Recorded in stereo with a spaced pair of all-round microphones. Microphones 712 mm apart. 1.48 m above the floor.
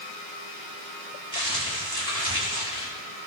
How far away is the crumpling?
About 4 m.